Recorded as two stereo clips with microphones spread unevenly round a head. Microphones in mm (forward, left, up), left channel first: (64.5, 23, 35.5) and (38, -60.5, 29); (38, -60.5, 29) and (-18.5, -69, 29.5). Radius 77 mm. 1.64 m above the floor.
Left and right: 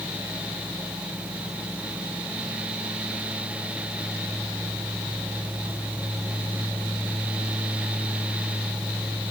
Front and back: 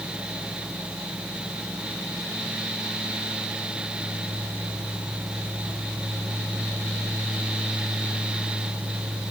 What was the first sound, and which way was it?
Only background noise.